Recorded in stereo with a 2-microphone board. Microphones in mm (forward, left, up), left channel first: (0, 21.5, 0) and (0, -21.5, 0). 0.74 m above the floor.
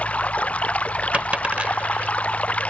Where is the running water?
35° left (ahead or behind).